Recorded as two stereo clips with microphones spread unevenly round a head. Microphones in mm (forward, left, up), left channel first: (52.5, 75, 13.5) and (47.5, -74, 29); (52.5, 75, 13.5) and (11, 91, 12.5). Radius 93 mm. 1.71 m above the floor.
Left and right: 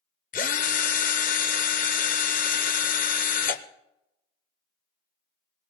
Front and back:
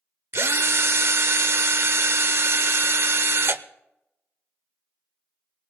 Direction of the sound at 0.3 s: 135° left.